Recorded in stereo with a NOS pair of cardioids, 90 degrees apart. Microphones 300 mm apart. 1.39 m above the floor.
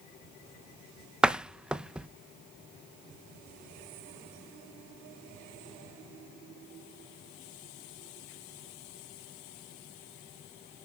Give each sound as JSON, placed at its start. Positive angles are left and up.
{"t": 1.2, "sound": "a door slam", "azimuth_deg": -5, "distance_m": 0.9}